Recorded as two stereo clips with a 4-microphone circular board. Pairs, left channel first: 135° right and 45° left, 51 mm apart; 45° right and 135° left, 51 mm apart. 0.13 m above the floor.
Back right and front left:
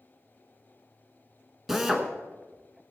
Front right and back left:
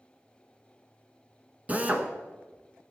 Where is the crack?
No crack in this recording.